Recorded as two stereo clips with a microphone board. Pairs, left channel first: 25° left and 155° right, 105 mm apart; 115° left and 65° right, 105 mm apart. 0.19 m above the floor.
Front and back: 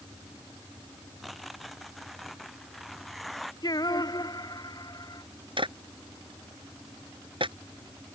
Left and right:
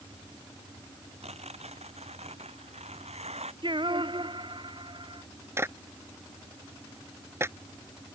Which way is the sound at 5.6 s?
130° right.